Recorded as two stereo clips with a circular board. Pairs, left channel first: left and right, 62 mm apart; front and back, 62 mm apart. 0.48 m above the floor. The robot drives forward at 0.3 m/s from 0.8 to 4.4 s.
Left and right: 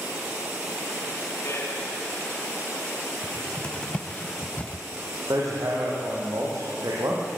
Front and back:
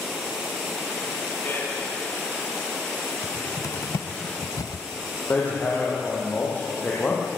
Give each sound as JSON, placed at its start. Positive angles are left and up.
{"t": 1.4, "sound": "a man speaking", "azimuth_deg": 50, "distance_m": 4.0}
{"t": 3.2, "sound": "a cupboard door", "azimuth_deg": 15, "distance_m": 1.1}
{"t": 5.3, "sound": "hammering", "azimuth_deg": -60, "distance_m": 7.0}